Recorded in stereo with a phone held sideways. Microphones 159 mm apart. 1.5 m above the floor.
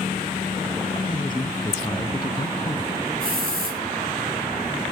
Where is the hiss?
70° right (ahead or behind), 7 m.